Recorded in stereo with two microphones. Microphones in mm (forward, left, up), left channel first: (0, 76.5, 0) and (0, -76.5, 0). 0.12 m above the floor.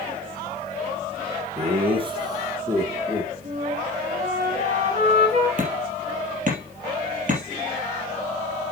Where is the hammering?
55° right (ahead or behind), 3 m.